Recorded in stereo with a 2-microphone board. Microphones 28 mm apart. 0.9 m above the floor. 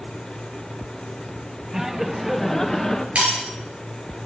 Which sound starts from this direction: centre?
Laughter, at 1.7 s.